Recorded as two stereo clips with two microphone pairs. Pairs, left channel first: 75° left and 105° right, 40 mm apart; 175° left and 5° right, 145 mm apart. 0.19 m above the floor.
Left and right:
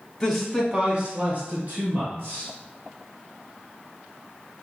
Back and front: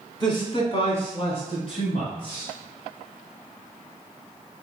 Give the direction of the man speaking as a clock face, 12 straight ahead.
7 o'clock.